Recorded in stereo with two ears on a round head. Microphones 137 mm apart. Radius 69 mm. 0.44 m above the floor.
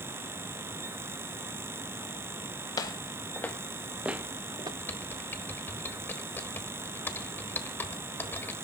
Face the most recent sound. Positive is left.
turn(degrees=15)  # may be behind; listen again after turning